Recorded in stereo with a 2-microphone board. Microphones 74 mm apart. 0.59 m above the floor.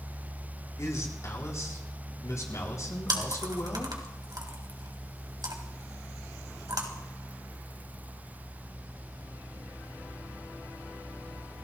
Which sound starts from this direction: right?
Chewing, at 3.1 s.